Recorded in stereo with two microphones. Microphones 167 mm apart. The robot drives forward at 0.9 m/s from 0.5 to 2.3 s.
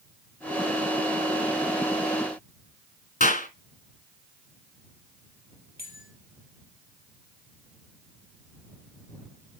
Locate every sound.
3.2 s a clap: 50° left (ahead or behind), 2.5 m
5.8 s a bell: 85° right, 3.5 m